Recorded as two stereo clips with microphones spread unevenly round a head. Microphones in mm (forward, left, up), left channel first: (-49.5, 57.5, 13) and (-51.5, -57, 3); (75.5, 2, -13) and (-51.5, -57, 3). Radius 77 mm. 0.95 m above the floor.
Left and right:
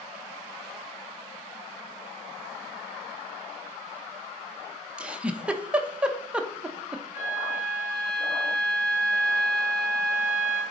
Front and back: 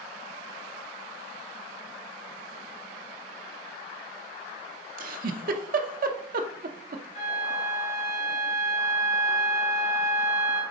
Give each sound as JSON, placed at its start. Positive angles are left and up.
{"t": 5.0, "sound": "a giggle", "azimuth_deg": -165, "distance_m": 0.7}
{"t": 7.1, "sound": "a flute", "azimuth_deg": 70, "distance_m": 2.5}